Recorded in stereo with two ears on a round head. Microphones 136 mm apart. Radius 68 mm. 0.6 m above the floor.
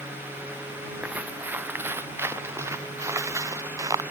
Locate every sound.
1.0 s footsteps: 10° right (ahead or behind); by 4.0 s 25° right (ahead or behind)